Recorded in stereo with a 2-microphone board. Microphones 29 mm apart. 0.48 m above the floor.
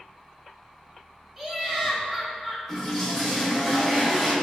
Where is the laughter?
15° right (ahead or behind), 0.8 m.